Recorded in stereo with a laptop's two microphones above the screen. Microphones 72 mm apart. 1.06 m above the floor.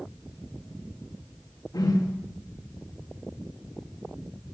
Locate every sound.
1.7 s a whoosh: 60° left (ahead or behind), 1.8 m